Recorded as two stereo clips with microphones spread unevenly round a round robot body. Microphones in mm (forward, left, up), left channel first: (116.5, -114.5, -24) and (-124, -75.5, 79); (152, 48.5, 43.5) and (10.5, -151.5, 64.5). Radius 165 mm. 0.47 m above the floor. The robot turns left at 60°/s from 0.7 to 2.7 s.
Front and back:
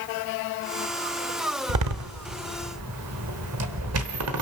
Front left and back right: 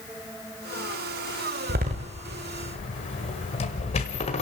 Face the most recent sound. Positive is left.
turn(degrees=120)